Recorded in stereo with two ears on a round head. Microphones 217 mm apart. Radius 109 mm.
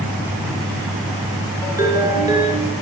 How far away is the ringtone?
About 5.5 m.